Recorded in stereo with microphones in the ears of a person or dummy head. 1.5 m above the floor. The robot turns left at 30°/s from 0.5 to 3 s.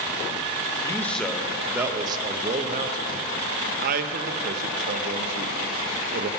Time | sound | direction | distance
0.8 | a man speaking | 20° left (ahead or behind) | 0.8 m